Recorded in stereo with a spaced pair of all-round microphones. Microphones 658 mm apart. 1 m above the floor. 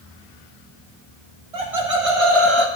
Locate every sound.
1.5 s laughter: 60° right (ahead or behind), 1.7 m; by 2.7 s 40° right (ahead or behind), 1.2 m